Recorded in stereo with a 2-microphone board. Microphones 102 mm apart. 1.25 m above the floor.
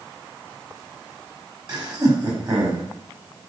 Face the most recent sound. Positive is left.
turn(degrees=-40)  # may be behind; listen again after turning